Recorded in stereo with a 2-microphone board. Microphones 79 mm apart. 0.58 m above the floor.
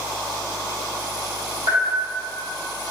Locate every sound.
1.7 s a bell: 70° right (ahead or behind), 1.9 m